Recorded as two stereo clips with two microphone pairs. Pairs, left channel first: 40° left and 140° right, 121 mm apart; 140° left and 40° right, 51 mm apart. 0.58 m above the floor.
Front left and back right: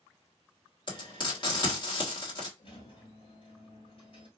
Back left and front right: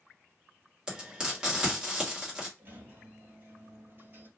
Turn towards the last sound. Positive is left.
turn(degrees=5)